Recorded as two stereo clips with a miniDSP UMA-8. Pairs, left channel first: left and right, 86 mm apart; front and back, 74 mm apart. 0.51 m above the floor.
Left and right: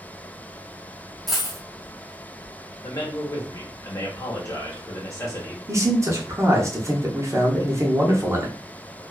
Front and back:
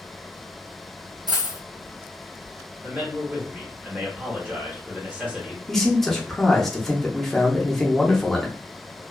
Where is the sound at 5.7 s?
85° right, 0.7 m.